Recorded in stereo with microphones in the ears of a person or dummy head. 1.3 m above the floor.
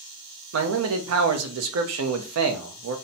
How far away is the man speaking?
About 0.6 m.